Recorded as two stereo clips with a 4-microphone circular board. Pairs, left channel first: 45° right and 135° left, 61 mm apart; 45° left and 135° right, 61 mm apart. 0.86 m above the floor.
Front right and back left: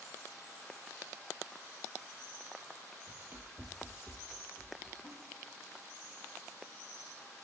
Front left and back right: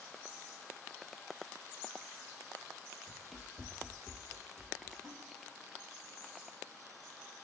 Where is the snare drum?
60° right, 5 m.